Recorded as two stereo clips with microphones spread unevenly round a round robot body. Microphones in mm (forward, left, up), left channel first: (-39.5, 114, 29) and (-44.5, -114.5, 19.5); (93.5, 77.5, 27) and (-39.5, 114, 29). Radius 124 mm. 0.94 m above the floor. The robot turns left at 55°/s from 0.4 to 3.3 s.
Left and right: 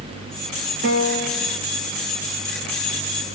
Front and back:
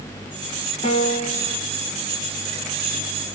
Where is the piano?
55° right, 1.0 m; by 1.6 s 95° right, 1.0 m.